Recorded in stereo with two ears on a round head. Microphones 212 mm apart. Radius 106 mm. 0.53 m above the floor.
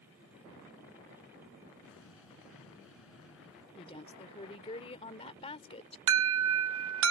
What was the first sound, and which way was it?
An explosion, 60° left (ahead or behind).